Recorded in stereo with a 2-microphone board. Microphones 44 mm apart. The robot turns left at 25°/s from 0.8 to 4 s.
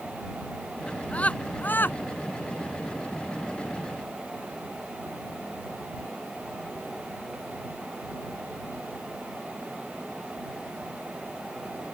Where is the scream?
25° left (ahead or behind); by 2.0 s 50° left (ahead or behind).